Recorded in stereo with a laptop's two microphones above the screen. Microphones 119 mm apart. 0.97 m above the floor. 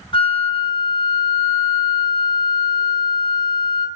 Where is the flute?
45° left (ahead or behind), 0.5 m.